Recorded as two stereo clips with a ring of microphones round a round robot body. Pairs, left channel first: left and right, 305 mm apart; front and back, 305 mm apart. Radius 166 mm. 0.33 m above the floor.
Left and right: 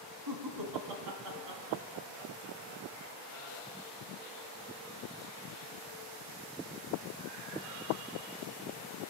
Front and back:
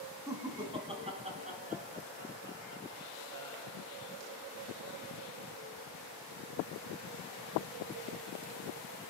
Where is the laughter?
100° right, 3 m; by 3.8 s 135° right, 3.5 m.